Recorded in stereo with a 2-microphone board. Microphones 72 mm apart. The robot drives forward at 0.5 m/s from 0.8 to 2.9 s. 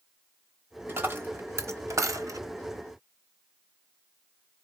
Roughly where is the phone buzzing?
I don't hear a phone buzzing.